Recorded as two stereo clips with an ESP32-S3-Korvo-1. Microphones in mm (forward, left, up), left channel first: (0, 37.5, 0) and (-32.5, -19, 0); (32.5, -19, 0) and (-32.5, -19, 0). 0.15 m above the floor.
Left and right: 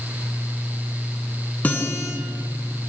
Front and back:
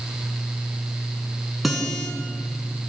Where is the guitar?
95° left, 1.5 m.